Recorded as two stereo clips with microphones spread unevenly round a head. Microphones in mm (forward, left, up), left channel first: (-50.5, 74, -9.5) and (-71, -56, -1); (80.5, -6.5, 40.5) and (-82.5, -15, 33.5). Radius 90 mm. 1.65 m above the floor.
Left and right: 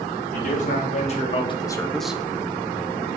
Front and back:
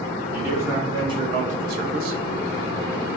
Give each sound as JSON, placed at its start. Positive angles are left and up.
{"t": 0.3, "sound": "a man speaking", "azimuth_deg": 105, "distance_m": 1.8}